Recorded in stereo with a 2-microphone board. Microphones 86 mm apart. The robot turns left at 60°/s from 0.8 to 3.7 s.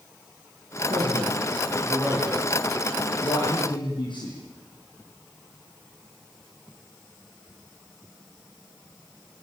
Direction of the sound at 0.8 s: 75° right (ahead or behind).